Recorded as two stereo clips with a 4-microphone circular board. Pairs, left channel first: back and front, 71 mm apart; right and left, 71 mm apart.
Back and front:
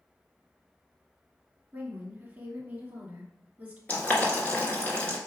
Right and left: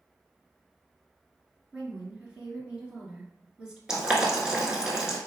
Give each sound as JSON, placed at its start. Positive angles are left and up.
{"t": 1.7, "sound": "a woman speaking", "azimuth_deg": 35, "distance_m": 1.3}
{"t": 3.9, "sound": "boiling", "azimuth_deg": 155, "distance_m": 1.2}